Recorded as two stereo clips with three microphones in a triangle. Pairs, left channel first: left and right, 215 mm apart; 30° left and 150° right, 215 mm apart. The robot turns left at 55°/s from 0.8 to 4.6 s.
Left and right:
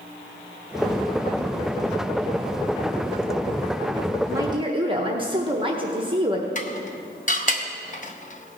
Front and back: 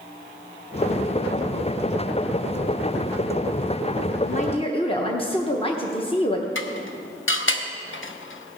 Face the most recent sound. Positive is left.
turn(degrees=40)